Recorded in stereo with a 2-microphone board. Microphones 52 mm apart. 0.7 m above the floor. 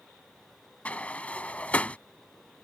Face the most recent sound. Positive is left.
turn(degrees=25)  # may be behind; listen again after turning